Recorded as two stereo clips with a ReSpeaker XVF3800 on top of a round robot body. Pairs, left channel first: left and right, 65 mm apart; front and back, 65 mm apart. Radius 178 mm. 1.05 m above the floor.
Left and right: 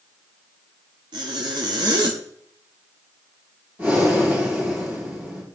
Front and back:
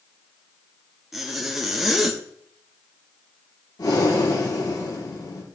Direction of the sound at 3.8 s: 30° right.